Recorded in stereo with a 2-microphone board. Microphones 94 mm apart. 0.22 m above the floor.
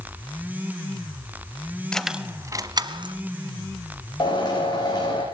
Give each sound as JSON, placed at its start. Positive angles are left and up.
{"t": 1.9, "sound": "keys jangling", "side_deg": 10, "distance_m": 0.8}
{"t": 4.2, "sound": "a drill", "side_deg": 45, "distance_m": 8.5}